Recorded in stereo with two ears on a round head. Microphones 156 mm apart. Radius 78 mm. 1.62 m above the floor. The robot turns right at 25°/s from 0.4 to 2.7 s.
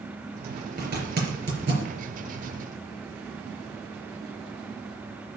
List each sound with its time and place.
0.8 s a zipper: 60° right (ahead or behind), 4 m; by 1.9 s 70° right (ahead or behind), 4 m